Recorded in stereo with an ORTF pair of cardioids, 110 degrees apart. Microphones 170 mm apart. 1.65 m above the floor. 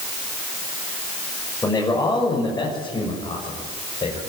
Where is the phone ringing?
No phone ringing in this recording.